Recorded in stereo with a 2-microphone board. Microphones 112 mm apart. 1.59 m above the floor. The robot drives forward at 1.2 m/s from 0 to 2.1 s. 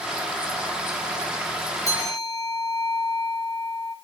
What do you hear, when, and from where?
1.9 s a bell: 30° left (ahead or behind), 2 m; by 4.0 s 35° left (ahead or behind), 1.9 m